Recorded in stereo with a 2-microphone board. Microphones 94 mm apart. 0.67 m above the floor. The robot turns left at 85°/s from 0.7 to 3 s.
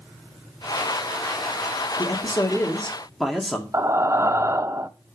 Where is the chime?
I don't hear a chime.